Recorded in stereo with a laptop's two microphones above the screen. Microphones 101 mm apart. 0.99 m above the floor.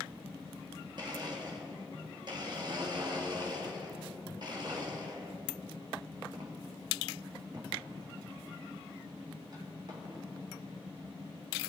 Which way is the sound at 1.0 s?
45° right (ahead or behind).